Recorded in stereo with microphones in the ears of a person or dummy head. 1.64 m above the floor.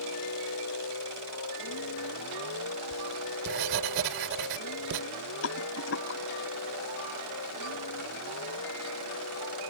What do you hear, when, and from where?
0.0 s a vehicle: 85° left; by 9.7 s 90° left
2.9 s writing: 65° right (ahead or behind)
5.4 s a rattle: 70° left (ahead or behind)